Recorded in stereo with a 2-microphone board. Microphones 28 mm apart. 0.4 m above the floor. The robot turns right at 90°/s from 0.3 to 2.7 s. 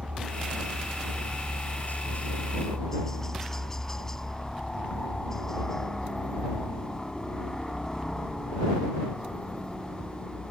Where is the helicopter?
55° right; by 10.5 s 160° left.